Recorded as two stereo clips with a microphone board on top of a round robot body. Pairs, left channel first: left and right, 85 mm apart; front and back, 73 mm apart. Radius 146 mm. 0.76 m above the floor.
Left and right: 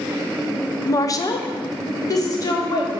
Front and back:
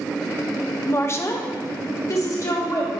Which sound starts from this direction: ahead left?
A woman speaking, at 0.9 s.